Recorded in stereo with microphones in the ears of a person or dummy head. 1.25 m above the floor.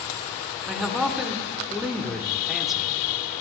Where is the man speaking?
Centre (ahead or behind), 1.0 m.